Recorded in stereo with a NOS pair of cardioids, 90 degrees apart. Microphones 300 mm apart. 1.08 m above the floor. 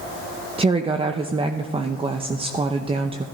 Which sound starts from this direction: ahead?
A woman speaking, at 0.6 s.